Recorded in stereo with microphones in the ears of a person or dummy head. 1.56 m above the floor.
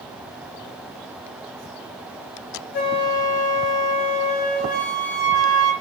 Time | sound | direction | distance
2.7 | a flute | 55° left (ahead or behind) | 1.5 m